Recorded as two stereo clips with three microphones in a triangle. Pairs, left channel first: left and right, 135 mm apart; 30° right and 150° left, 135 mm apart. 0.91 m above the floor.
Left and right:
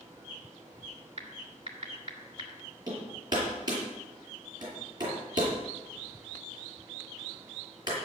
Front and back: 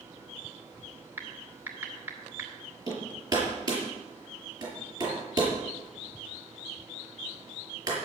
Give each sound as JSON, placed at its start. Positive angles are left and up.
{"t": 1.2, "sound": "typing on a keyboard", "azimuth_deg": -135, "distance_m": 2.5}
{"t": 2.9, "sound": "hammering", "azimuth_deg": -150, "distance_m": 6.5}